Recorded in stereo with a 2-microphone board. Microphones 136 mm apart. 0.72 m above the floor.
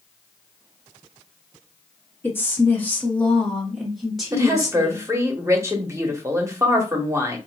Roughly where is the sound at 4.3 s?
Right.